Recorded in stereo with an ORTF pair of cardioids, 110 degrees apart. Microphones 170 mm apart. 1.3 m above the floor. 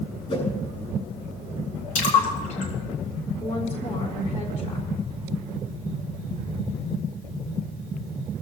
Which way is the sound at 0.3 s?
40° left.